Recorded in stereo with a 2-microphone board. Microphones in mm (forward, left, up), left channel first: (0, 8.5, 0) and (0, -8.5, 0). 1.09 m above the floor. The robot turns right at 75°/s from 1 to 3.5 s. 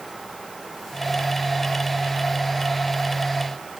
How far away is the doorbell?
I don't hear a doorbell.